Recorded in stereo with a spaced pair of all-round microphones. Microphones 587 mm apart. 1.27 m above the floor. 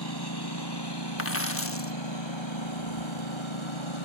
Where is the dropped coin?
25° left (ahead or behind).